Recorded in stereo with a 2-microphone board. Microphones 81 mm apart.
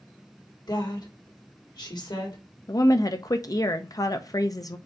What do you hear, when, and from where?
0.7 s a woman speaking: 60° left (ahead or behind), 1.9 m
2.7 s a woman speaking: 50° left (ahead or behind), 0.5 m